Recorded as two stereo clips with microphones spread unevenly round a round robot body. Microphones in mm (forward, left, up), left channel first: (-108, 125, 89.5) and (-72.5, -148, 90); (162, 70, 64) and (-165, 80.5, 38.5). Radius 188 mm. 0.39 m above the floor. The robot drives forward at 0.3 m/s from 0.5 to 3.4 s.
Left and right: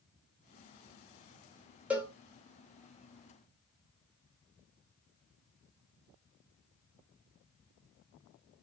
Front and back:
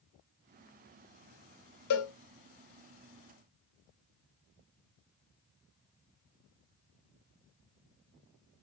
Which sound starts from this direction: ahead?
A cowbell, at 1.9 s.